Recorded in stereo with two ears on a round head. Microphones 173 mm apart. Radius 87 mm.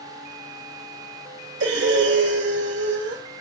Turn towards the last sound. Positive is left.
turn(degrees=-65)  # may be behind; listen again after turning